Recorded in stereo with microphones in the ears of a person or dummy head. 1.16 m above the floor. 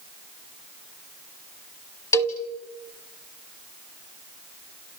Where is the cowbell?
15° left (ahead or behind), 1.5 m.